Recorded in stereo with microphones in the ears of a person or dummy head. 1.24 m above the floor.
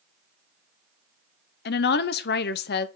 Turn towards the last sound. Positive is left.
turn(degrees=50)  # may be behind; listen again after turning